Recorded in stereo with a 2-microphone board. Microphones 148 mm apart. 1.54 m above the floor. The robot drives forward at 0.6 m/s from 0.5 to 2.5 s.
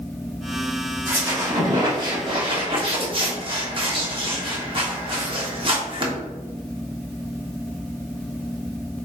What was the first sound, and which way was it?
A squeak, 20° right (ahead or behind).